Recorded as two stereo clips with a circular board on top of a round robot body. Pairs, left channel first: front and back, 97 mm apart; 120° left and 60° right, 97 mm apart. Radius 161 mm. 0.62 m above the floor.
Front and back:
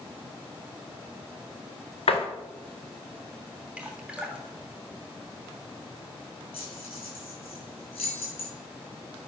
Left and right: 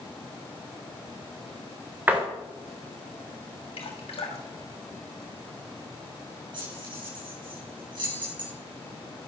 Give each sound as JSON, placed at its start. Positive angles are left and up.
{"t": 2.1, "sound": "a door slam", "azimuth_deg": 10, "distance_m": 2.5}
{"t": 3.8, "sound": "dripping", "azimuth_deg": 100, "distance_m": 3.0}
{"t": 6.5, "sound": "keys jangling", "azimuth_deg": -20, "distance_m": 7.5}